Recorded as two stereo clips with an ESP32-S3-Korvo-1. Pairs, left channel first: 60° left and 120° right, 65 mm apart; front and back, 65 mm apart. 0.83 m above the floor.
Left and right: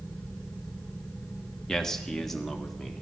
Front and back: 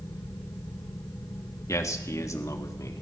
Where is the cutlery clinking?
I don't hear cutlery clinking.